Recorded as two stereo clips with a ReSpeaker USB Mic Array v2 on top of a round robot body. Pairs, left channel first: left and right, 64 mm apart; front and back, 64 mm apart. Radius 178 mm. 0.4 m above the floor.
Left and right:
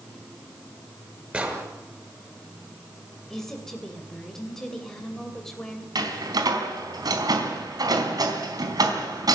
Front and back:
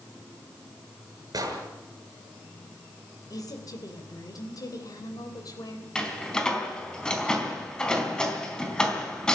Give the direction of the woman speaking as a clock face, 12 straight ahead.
12 o'clock.